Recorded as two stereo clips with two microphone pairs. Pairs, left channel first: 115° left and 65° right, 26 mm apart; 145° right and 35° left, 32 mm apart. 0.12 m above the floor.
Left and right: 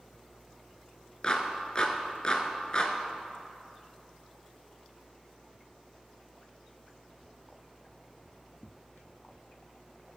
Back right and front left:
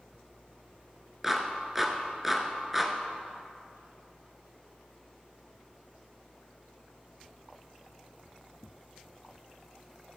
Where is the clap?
110° left, 1.1 m.